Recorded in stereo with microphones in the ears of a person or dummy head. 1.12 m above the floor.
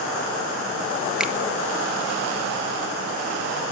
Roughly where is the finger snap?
Centre.